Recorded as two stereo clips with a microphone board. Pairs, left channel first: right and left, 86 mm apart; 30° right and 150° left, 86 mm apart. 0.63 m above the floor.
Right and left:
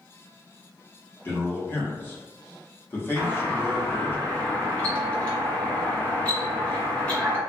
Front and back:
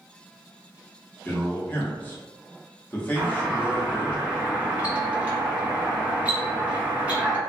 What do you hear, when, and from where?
1.2 s a man speaking: 70° right, 1.0 m
3.2 s a doorbell: 150° right, 1.5 m